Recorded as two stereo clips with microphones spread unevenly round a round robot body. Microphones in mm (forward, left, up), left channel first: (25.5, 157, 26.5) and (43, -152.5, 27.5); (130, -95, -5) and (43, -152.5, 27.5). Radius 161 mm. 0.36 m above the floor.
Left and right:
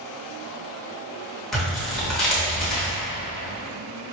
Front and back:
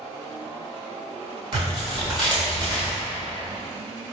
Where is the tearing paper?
Straight behind, 1.1 m.